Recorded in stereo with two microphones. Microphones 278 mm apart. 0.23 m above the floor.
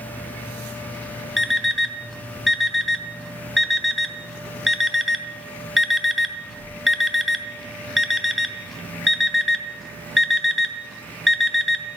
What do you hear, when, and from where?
1.4 s an alarm clock: centre (ahead or behind), 0.6 m